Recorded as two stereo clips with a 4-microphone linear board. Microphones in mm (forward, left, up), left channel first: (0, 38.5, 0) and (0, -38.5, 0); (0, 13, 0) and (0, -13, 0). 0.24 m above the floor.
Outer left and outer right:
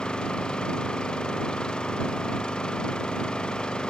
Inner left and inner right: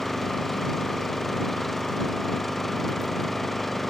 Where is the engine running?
10° left (ahead or behind).